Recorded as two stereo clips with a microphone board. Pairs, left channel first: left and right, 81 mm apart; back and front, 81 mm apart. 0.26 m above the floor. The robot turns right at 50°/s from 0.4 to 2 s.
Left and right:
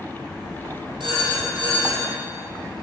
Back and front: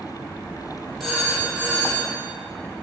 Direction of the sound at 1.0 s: 90° right.